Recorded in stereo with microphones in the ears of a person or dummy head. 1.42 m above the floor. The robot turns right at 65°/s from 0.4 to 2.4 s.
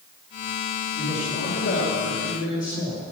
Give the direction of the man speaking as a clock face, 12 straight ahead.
11 o'clock.